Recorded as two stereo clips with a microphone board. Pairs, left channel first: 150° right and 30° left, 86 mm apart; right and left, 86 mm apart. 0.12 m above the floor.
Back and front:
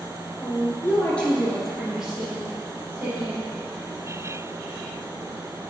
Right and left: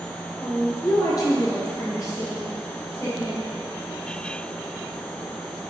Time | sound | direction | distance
0.4 | a woman speaking | 120° right | 1.8 m